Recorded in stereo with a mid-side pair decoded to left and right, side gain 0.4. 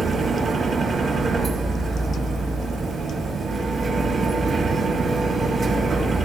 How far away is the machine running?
About 4.5 m.